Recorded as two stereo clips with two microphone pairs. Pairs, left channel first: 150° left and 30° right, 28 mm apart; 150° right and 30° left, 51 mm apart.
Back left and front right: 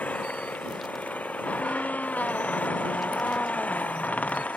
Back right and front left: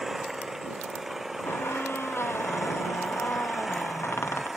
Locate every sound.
0.0 s an engine running: 115° left
1.4 s a squeak: 175° left